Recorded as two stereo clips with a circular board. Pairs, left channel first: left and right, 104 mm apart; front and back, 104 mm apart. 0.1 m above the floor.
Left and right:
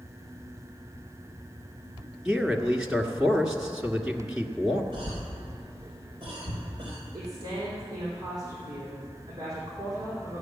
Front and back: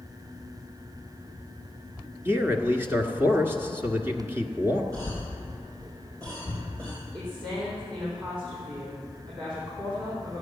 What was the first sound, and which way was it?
A man speaking, 165° right.